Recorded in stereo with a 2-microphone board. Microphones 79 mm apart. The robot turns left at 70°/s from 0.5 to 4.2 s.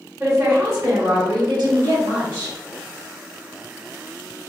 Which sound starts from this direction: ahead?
A woman speaking, at 0.2 s.